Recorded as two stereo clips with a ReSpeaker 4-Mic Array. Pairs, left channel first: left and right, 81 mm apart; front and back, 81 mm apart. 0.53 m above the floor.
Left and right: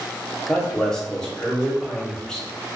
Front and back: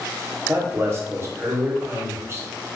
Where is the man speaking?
165° left, 1.0 m.